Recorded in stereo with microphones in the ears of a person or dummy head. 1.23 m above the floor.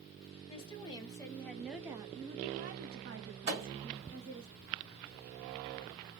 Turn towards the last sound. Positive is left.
turn(degrees=-30)  # may be behind; listen again after turning